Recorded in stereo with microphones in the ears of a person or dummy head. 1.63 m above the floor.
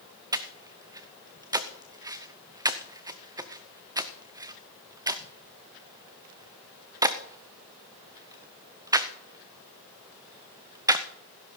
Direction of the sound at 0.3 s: 15° right (ahead or behind).